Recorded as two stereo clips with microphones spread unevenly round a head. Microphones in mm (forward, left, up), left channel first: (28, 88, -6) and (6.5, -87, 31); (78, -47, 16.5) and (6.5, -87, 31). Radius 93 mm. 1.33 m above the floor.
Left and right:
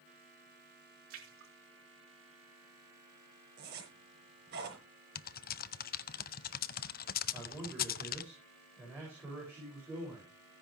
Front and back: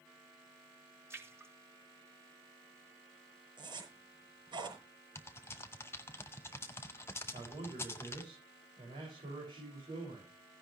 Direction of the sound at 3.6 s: 135° right.